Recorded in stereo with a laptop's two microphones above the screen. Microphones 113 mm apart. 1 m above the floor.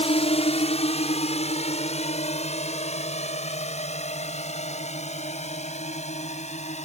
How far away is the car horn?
No car horn in this recording.